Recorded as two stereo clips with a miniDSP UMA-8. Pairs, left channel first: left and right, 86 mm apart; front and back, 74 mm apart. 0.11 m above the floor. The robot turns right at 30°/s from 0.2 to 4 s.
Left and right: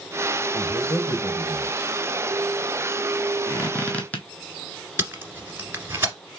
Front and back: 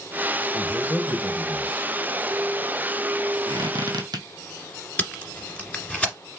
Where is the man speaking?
5° left, 3 m; by 1.9 s 50° left, 3 m.